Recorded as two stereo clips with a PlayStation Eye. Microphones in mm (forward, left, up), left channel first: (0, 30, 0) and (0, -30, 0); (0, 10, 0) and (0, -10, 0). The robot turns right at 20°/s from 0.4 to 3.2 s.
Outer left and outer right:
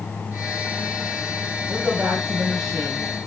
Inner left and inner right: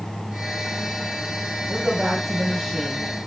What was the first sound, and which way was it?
A woman speaking, 20° right (ahead or behind).